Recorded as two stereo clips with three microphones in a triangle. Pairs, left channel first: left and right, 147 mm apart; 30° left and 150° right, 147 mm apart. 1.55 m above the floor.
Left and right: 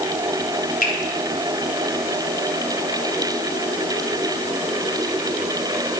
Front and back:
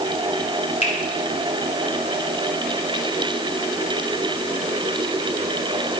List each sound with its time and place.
0.8 s a finger snap: 70° left, 3.5 m